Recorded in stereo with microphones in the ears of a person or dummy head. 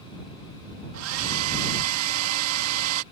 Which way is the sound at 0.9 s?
85° right.